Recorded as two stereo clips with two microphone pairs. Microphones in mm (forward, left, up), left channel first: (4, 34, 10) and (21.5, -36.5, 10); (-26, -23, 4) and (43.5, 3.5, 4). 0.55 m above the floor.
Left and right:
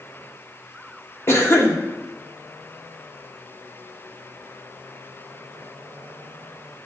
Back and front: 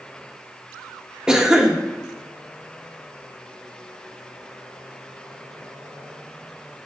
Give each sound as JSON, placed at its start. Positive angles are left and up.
{"t": 1.3, "sound": "a cough", "azimuth_deg": 90, "distance_m": 1.0}